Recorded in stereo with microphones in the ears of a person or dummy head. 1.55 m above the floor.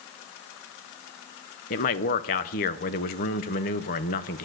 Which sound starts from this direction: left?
A man speaking, at 1.7 s.